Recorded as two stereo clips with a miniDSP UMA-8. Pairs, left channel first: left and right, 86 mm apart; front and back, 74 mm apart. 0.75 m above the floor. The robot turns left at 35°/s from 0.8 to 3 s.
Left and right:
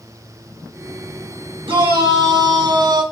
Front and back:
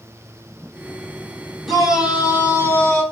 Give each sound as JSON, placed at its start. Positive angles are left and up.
{"t": 1.6, "sound": "a shout", "azimuth_deg": -85, "distance_m": 5.0}